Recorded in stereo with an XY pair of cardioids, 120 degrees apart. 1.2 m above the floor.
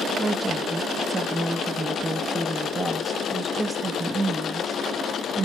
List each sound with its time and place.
0.2 s a woman speaking: 15° right, 1.1 m